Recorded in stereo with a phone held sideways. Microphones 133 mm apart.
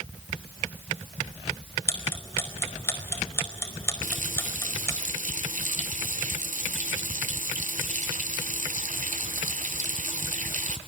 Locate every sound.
1.9 s ticking: 20° left (ahead or behind), 4.5 m
4.0 s a running tap: 75° right (ahead or behind), 1.9 m